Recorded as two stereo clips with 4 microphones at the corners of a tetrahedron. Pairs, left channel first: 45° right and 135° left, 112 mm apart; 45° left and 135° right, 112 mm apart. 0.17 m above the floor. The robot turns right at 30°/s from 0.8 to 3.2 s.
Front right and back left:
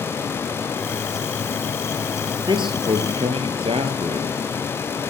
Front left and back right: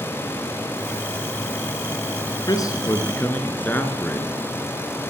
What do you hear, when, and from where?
2.5 s a man speaking: 95° left, 2 m; by 4.4 s 120° left, 2 m